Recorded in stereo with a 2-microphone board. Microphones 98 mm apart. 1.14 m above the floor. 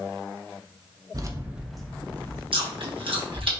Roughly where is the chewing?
Right.